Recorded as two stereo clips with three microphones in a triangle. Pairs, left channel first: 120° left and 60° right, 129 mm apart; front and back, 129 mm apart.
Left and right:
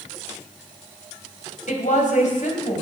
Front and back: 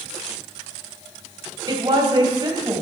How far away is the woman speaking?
About 3.5 m.